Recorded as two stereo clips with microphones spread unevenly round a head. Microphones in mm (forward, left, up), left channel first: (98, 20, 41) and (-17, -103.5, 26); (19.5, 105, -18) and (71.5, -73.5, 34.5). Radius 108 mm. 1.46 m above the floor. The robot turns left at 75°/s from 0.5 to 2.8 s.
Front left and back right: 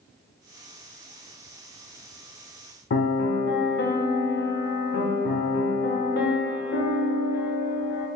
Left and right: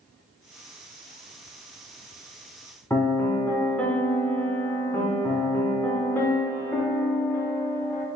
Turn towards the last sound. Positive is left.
turn(degrees=35)